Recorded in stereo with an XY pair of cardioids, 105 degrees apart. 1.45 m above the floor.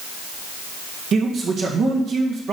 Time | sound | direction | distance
1.1 | a man speaking | 60° right | 1.7 m